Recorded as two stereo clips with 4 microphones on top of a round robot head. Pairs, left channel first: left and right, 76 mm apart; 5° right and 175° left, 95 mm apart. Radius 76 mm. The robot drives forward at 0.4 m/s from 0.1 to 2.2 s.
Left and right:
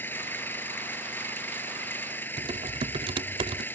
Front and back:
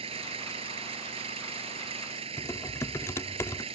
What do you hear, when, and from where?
0.0 s an engine running: 155° left
2.4 s typing on a keyboard: 75° right